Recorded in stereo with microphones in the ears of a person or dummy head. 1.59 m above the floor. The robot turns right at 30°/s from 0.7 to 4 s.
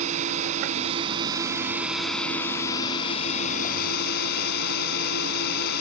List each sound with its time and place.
0.0 s a drone: 35° right; by 5.8 s 60° left